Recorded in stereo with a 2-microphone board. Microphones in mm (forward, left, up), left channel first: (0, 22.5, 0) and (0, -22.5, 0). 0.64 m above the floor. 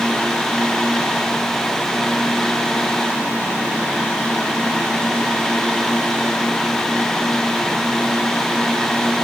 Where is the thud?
I don't hear a thud.